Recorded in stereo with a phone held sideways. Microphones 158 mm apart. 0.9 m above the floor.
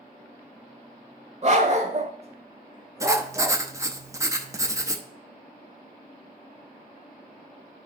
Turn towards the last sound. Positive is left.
turn(degrees=-20)  # may be behind; listen again after turning